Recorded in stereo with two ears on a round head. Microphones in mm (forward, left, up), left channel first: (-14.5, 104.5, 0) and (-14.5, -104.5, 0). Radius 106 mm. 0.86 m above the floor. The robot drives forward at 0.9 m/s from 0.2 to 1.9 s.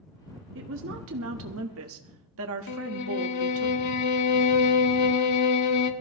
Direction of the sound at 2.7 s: 80° left.